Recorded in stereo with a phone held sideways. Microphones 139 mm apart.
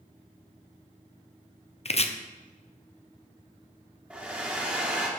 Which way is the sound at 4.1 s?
10° right (ahead or behind).